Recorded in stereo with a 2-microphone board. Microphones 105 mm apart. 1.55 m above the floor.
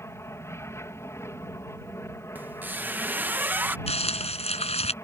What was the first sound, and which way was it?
An aircraft, 25° left (ahead or behind).